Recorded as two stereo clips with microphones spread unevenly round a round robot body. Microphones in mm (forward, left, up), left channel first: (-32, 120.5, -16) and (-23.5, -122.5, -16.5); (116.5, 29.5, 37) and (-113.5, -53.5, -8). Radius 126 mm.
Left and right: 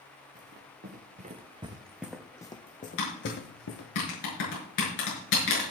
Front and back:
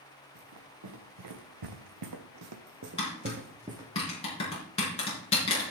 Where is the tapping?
90° left, 6.5 m.